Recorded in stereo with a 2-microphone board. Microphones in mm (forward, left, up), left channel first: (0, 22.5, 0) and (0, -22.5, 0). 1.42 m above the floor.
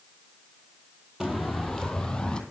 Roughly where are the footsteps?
Centre.